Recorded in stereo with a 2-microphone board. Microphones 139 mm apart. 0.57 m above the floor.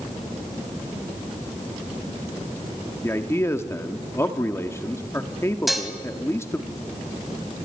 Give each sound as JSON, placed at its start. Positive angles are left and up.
{"t": 3.0, "sound": "a man speaking", "side_deg": 20, "distance_m": 1.2}
{"t": 5.7, "sound": "dishes clattering", "side_deg": 0, "distance_m": 2.0}